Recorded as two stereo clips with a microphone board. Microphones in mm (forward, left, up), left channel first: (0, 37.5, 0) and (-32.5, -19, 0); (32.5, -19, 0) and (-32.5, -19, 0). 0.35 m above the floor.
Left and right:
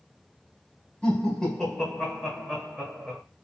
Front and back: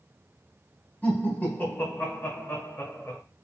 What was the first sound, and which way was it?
Laughter, 15° left.